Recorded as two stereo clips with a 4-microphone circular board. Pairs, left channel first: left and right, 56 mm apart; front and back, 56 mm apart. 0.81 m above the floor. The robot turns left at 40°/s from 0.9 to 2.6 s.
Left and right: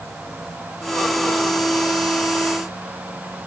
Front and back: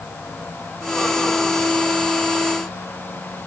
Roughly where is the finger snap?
I don't hear a finger snap.